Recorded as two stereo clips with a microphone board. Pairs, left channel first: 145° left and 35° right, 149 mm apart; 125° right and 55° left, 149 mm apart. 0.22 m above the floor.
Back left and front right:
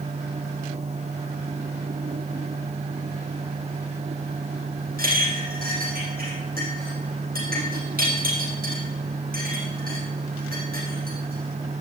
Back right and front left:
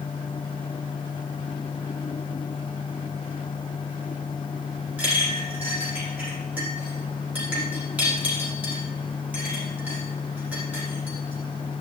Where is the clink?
25° right, 5 m.